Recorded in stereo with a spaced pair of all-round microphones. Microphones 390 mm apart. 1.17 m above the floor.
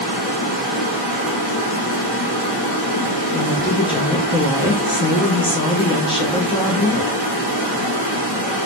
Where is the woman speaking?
15° left (ahead or behind), 0.5 m.